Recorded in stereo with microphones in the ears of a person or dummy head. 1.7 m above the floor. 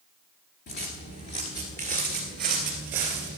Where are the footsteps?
30° left (ahead or behind), 1.9 m; by 3.4 s 10° right (ahead or behind), 1.9 m.